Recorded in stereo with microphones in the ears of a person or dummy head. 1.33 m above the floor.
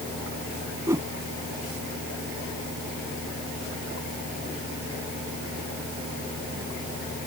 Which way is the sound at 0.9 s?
15° right (ahead or behind).